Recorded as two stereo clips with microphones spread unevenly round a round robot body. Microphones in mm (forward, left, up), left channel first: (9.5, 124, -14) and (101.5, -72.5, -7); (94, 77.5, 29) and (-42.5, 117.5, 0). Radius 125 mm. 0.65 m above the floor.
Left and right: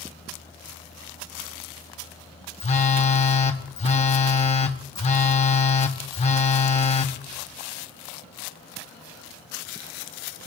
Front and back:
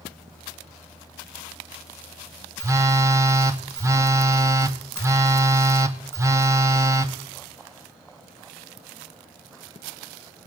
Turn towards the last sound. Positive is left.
turn(degrees=145)